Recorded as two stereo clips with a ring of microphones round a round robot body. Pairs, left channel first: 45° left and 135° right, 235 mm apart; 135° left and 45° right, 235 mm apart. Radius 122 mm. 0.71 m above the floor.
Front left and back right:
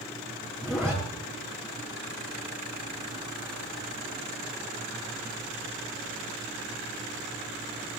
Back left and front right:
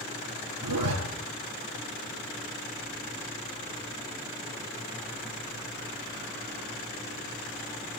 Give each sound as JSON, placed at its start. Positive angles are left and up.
{"t": 0.6, "sound": "a zipper", "azimuth_deg": -45, "distance_m": 5.5}